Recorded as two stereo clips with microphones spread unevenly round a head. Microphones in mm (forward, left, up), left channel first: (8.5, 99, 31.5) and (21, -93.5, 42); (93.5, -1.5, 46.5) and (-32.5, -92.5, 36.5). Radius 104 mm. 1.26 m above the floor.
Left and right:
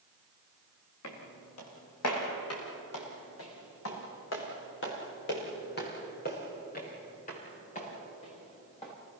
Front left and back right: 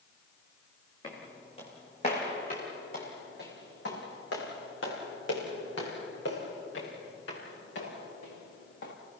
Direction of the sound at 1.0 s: 105° left.